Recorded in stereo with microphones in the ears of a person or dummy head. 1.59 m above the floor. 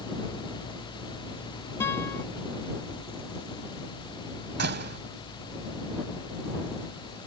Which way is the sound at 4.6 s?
55° right (ahead or behind).